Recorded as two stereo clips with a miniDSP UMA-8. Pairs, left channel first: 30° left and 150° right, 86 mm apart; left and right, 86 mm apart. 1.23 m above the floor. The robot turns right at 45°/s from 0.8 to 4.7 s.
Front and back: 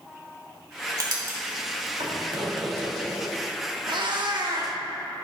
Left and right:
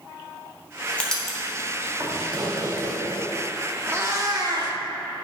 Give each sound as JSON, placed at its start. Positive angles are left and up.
{"t": 1.0, "sound": "writing", "azimuth_deg": 165, "distance_m": 1.9}
{"t": 3.9, "sound": "a cat meowing", "azimuth_deg": -150, "distance_m": 1.1}